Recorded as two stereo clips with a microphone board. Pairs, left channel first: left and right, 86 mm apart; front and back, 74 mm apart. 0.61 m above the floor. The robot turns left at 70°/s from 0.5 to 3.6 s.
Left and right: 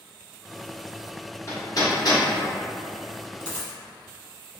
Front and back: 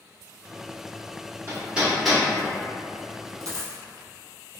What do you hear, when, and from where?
1.5 s hammering: 130° left, 0.9 m; by 2.2 s 75° left, 0.9 m
3.4 s a dropped coin: 165° left, 0.9 m; by 3.8 s 150° left, 0.9 m